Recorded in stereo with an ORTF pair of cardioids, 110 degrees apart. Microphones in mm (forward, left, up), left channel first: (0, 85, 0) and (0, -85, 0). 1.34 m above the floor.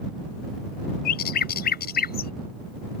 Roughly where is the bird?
Left.